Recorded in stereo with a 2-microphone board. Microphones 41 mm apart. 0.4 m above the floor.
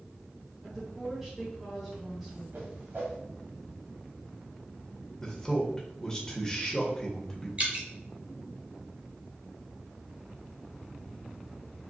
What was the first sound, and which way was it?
A woman speaking, 10° right (ahead or behind).